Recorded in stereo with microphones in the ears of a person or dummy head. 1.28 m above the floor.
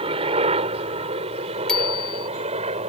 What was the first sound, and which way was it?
A helicopter, 35° right (ahead or behind).